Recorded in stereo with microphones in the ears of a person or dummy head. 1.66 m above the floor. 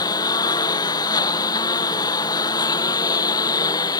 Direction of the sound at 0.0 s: 20° left (ahead or behind).